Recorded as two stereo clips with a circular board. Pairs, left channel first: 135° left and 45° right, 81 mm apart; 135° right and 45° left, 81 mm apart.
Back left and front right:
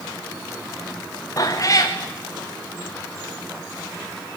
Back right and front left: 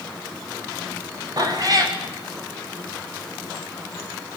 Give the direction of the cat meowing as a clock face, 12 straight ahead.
9 o'clock.